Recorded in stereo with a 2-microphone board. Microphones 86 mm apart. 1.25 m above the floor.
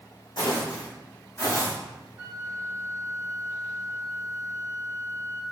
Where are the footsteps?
55° left (ahead or behind), 2.5 m; by 1.7 s 35° left (ahead or behind), 3 m.